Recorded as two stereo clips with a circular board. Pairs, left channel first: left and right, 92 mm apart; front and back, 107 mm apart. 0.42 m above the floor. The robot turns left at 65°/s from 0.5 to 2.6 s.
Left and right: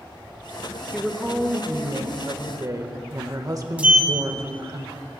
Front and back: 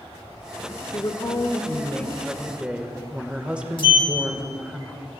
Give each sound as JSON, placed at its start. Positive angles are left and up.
{"t": 0.9, "sound": "a woman speaking", "azimuth_deg": 5, "distance_m": 1.1}
{"t": 3.8, "sound": "a sliding door", "azimuth_deg": -20, "distance_m": 1.3}